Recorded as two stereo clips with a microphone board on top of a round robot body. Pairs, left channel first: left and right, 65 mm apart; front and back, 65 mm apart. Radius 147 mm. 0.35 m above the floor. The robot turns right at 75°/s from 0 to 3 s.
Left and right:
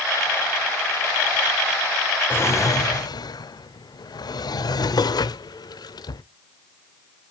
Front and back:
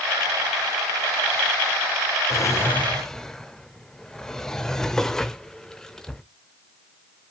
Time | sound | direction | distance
2.3 | a drawer | 30° left | 0.5 m